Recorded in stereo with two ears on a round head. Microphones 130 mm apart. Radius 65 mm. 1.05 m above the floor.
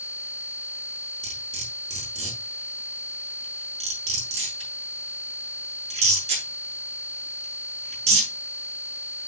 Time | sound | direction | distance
1.2 | cutlery clinking | 50° right (ahead or behind) | 6.5 m